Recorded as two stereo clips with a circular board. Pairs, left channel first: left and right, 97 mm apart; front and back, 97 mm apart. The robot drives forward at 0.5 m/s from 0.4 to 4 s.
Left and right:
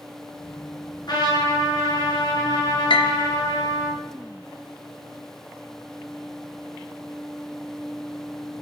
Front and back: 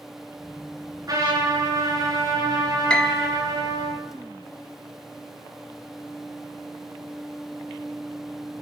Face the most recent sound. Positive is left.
turn(degrees=110)